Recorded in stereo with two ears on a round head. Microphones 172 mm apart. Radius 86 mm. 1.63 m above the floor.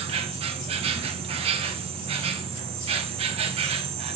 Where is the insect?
35° right (ahead or behind), 1.1 m.